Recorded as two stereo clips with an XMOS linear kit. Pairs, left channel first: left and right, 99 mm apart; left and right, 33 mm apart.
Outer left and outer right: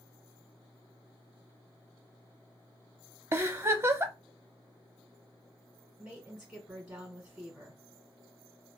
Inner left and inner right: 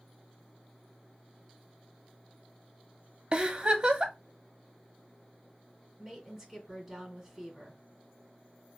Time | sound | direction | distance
3.3 | a giggle | 30° right (ahead or behind) | 0.6 m
6.0 | a woman speaking | 10° right (ahead or behind) | 2.5 m